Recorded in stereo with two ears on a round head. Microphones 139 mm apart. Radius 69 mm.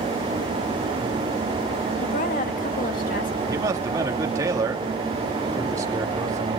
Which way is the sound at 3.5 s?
20° right (ahead or behind).